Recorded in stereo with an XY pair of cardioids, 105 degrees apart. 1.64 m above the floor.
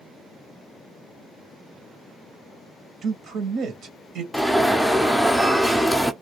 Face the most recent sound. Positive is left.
turn(degrees=5)